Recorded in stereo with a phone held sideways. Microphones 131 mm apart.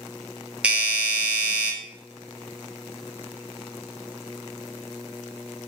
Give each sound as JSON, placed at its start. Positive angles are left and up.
{"t": 0.6, "sound": "a doorbell", "side_deg": -10, "distance_m": 0.7}